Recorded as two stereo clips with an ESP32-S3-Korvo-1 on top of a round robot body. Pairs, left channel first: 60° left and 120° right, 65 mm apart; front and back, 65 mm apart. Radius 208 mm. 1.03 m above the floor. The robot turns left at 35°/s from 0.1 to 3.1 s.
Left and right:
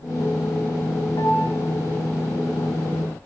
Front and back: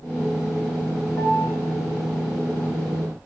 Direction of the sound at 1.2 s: 60° left.